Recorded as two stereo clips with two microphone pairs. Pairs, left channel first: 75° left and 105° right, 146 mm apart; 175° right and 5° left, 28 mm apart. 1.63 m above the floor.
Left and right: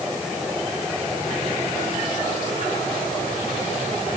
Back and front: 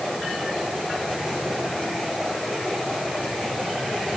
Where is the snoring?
No snoring in this recording.